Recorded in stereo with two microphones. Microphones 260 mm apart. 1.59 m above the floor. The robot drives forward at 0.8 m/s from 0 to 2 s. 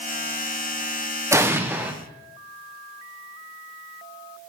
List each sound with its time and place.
1.3 s an explosion: 10° right (ahead or behind), 0.8 m; by 1.9 s 5° right (ahead or behind), 1.3 m